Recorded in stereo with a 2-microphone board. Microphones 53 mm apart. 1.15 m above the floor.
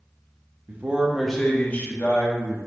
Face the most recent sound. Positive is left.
turn(degrees=50)  # may be behind; listen again after turning